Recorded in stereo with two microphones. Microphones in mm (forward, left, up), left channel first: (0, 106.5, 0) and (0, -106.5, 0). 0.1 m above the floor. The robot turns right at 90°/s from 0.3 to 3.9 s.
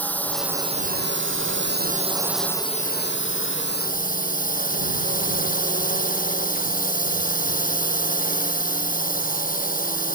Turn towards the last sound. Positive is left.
turn(degrees=135)